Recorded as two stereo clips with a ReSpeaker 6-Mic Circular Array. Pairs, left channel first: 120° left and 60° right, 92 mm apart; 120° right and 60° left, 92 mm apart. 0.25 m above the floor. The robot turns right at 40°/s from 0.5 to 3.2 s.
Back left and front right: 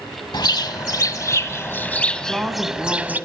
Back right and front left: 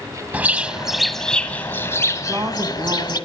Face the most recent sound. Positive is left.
turn(degrees=50)